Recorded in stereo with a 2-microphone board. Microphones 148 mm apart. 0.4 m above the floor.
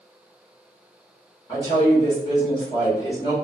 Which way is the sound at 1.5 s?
30° left (ahead or behind).